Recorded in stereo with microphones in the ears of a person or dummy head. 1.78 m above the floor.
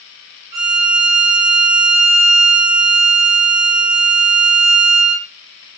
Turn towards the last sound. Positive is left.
turn(degrees=-20)  # may be behind; listen again after turning